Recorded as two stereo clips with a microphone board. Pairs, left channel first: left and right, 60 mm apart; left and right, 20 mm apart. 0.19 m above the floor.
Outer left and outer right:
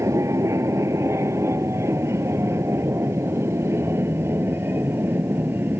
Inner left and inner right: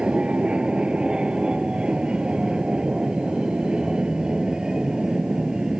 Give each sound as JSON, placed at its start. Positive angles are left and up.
{"t": 0.0, "sound": "an aircraft", "side_deg": -60}